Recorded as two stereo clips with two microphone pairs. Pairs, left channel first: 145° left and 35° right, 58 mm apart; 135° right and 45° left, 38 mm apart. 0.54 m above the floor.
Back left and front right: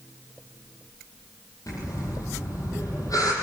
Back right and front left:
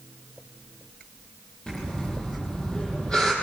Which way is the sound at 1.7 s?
160° left.